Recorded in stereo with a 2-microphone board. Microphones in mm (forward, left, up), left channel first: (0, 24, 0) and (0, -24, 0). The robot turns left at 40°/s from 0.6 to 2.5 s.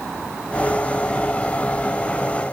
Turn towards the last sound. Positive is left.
No sound to turn to.